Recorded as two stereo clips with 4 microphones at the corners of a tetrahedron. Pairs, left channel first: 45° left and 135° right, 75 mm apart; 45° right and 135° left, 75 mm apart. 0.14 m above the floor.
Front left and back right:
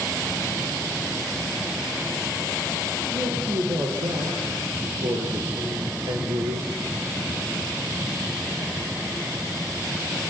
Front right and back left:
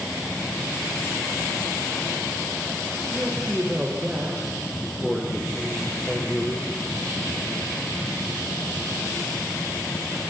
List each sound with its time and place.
3.1 s a man speaking: 150° right, 6 m; by 6.8 s 115° right, 2.5 m